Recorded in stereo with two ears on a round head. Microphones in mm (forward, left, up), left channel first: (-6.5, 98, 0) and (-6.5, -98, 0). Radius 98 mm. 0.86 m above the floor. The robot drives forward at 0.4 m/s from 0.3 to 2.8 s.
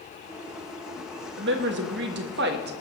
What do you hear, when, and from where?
1.4 s a woman speaking: 55° right (ahead or behind), 1.2 m; by 2.7 s 50° right (ahead or behind), 1.3 m